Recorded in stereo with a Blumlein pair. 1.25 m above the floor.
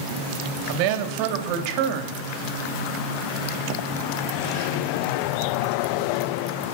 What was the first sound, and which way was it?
A woman speaking, 45° right.